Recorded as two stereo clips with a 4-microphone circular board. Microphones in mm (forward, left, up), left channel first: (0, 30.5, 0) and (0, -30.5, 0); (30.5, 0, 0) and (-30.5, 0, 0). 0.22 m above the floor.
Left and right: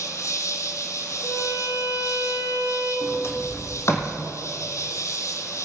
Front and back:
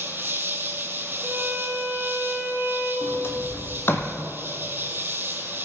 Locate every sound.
0.0 s an insect: 125° left, 1.0 m
1.2 s a violin: 120° left, 4 m
3.0 s a sliding door: 45° left, 1.2 m